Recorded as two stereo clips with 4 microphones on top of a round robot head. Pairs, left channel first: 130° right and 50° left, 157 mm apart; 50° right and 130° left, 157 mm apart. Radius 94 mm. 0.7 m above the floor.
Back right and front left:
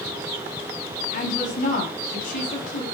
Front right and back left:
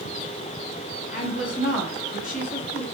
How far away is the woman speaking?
About 6 m.